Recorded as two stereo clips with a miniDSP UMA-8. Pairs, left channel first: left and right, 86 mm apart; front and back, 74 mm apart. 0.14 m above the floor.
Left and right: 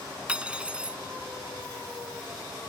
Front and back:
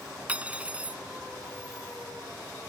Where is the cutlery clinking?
145° right.